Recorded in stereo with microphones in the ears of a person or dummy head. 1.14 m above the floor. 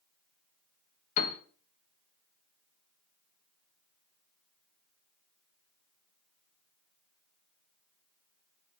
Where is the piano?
40° left (ahead or behind), 0.5 m.